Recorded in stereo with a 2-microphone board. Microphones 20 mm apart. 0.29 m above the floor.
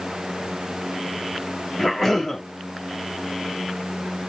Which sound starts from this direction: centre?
A cough, at 1.8 s.